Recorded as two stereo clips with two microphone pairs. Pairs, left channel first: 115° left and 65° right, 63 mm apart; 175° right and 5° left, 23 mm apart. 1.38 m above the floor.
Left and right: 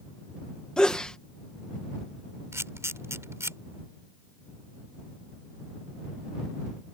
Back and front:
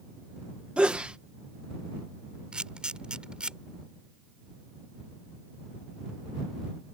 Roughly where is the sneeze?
Ahead left.